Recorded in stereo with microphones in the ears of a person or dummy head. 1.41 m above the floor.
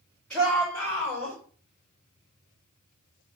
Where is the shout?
10° left (ahead or behind), 4.5 m; by 1.4 s 15° left (ahead or behind), 5 m.